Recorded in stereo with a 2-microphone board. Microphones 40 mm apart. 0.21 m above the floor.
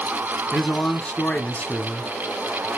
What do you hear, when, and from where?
0.5 s a man speaking: 35° left (ahead or behind), 1.8 m